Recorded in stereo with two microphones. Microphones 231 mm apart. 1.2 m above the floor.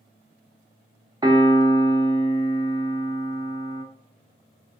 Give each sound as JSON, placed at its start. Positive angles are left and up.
{"t": 1.2, "sound": "a piano", "side_deg": -20, "distance_m": 0.5}